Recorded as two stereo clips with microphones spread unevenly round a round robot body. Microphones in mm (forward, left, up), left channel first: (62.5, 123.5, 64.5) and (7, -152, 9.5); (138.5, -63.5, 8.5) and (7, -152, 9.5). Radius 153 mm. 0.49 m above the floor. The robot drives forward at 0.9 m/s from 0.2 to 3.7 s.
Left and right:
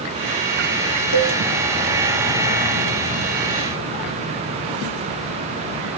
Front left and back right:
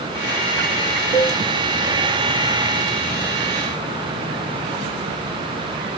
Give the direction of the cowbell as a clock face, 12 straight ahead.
8 o'clock.